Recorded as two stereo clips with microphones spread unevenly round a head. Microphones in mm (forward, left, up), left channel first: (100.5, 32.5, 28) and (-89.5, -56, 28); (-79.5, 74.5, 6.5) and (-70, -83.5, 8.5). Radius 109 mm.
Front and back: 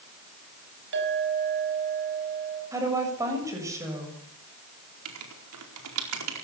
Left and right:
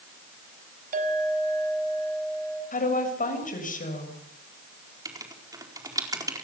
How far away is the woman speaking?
About 7 m.